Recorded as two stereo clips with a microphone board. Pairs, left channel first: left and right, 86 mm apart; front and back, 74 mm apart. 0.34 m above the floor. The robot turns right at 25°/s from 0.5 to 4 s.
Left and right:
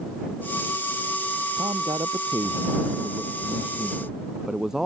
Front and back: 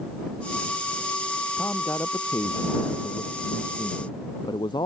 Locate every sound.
1.6 s a man speaking: 65° right; by 4.9 s 5° right